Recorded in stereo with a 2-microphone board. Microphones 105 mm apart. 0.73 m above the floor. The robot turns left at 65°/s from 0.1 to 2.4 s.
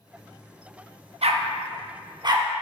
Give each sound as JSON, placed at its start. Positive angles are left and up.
{"t": 1.2, "sound": "a dog barking", "side_deg": -70, "distance_m": 0.7}